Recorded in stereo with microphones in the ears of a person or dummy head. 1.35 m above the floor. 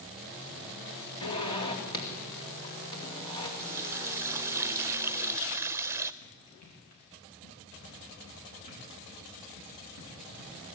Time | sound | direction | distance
1.2 | a zipper | 30° left (ahead or behind) | 2.5 m
3.6 | a running tap | 15° right (ahead or behind) | 0.6 m
6.2 | running footsteps | 45° left (ahead or behind) | 7.5 m